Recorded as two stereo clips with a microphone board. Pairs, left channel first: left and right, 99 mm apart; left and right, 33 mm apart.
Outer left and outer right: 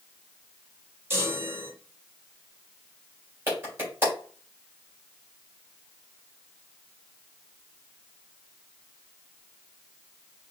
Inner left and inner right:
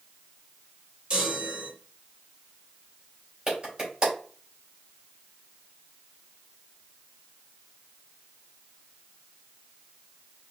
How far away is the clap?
About 3.5 m.